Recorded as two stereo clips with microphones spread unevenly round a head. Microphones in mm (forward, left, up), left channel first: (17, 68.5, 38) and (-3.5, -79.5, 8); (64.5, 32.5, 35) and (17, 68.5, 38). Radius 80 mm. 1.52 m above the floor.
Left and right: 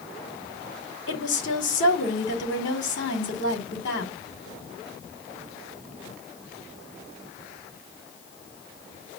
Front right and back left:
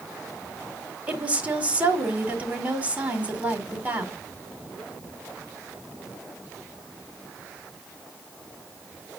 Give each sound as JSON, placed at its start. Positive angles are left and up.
{"t": 1.1, "sound": "a woman speaking", "azimuth_deg": 75, "distance_m": 4.0}